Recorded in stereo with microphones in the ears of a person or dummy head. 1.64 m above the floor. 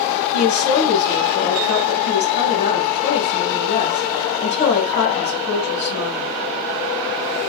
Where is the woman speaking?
40° left (ahead or behind), 1.8 m.